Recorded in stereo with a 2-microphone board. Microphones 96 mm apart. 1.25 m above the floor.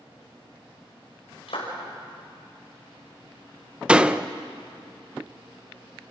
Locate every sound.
1.5 s a clap: 80° left, 5.5 m
3.9 s a door slam: 10° right (ahead or behind), 0.6 m